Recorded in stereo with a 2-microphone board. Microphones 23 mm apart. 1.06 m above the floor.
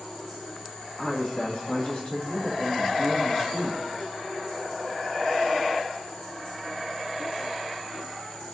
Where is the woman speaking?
40° left (ahead or behind), 2 m.